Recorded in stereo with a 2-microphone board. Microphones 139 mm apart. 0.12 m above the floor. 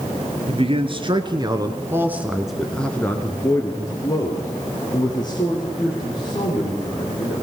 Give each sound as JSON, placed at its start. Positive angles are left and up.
{"t": 0.5, "sound": "a man speaking", "side_deg": -45, "distance_m": 2.5}